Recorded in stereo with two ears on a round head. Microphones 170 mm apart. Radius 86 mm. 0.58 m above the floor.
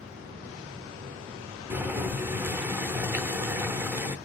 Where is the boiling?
10° right (ahead or behind), 0.6 m.